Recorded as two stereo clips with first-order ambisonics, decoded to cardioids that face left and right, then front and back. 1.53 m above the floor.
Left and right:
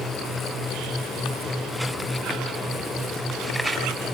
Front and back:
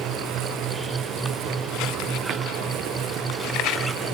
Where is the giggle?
No giggle in this recording.